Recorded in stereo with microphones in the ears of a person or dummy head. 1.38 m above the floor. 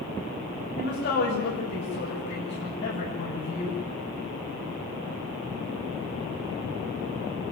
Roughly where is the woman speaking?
Left.